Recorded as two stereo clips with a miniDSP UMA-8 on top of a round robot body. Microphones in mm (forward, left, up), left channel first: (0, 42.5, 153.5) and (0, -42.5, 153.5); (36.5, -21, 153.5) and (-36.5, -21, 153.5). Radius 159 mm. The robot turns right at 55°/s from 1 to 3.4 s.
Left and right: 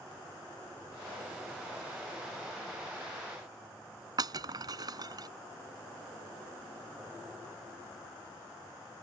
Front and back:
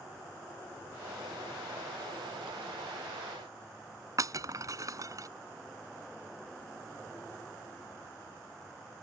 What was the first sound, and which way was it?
Breaking glass, 135° right.